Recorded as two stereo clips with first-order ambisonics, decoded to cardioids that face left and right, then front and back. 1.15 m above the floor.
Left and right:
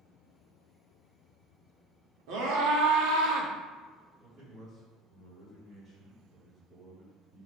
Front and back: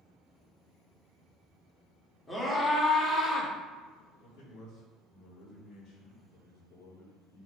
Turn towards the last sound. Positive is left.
turn(degrees=-25)